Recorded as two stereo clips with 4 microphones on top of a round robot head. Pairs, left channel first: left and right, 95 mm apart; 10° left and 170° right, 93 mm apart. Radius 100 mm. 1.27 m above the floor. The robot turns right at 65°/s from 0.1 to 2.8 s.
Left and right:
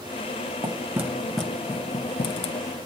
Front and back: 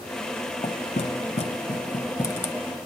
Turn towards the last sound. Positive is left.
turn(degrees=95)